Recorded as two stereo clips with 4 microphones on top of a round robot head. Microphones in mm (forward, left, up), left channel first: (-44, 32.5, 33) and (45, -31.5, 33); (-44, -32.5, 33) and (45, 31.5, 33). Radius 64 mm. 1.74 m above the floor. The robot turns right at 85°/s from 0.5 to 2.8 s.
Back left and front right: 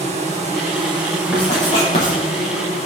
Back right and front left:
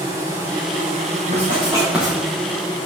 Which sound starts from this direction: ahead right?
An insect, at 0.0 s.